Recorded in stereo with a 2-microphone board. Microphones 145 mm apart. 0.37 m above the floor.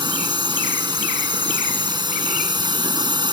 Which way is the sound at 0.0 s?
30° right (ahead or behind).